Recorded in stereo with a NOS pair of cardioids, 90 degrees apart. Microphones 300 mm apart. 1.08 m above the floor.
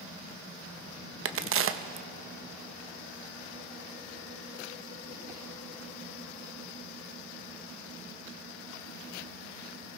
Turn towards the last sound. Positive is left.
turn(degrees=-45)